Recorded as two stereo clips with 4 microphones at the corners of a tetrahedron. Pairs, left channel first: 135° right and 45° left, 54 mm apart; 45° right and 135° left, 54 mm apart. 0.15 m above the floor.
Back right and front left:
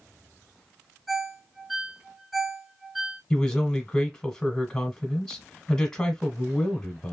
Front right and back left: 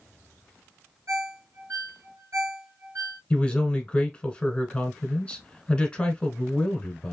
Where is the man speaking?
80° right, 1.1 m.